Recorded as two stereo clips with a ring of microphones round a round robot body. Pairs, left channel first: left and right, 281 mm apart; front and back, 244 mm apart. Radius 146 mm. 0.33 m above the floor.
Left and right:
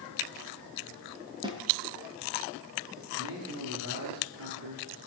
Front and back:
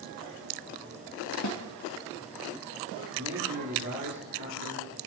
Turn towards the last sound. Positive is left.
turn(degrees=-135)